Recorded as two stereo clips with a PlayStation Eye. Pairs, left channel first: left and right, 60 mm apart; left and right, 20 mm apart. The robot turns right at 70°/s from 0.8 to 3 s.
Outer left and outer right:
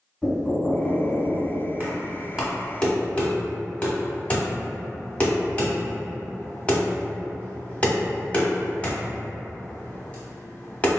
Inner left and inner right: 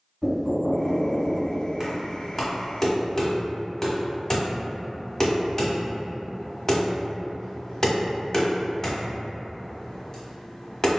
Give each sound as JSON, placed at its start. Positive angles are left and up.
{"t": 0.2, "sound": "knocking", "azimuth_deg": 155, "distance_m": 1.7}
{"t": 1.8, "sound": "knocking", "side_deg": -30, "distance_m": 1.1}